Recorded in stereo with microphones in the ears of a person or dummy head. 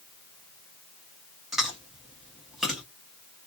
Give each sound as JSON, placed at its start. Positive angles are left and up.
{"t": 1.5, "sound": "chewing", "side_deg": 0, "distance_m": 1.5}